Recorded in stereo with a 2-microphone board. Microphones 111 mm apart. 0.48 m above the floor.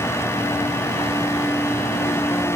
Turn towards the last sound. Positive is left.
No sound to turn to.